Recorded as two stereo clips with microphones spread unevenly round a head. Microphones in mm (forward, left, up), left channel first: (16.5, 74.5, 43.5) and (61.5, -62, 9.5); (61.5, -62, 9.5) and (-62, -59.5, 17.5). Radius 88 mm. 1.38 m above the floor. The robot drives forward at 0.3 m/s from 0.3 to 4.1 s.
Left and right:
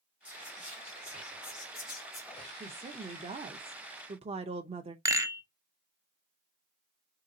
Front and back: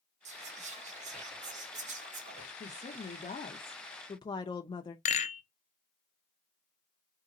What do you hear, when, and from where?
0.2 s whispering: 155° right, 1.7 m; by 2.5 s 160° right, 2.5 m
2.6 s a woman speaking: 25° right, 0.8 m; by 5.0 s 50° right, 0.5 m
5.0 s a rattle: 10° right, 0.8 m